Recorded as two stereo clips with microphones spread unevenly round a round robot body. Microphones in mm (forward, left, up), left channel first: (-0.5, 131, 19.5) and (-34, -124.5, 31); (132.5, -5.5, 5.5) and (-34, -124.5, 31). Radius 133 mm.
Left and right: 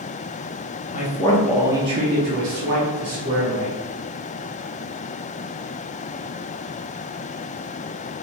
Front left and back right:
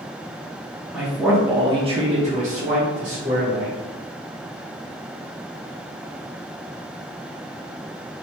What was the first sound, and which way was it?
A man speaking, 120° left.